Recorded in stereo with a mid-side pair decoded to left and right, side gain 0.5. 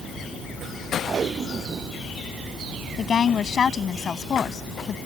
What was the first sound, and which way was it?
Tape being pulled, 40° right.